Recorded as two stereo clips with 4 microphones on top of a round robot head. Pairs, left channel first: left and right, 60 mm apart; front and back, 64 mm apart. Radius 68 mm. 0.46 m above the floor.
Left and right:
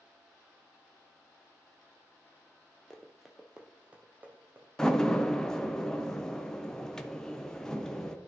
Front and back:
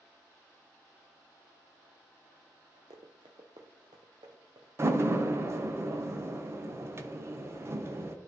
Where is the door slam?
165° left, 1.0 m.